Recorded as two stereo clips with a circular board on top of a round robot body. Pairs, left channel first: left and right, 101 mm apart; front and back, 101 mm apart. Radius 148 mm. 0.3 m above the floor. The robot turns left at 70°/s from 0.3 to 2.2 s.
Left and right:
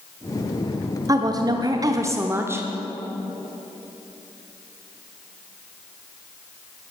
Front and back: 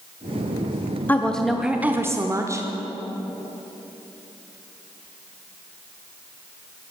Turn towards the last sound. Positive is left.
turn(degrees=-140)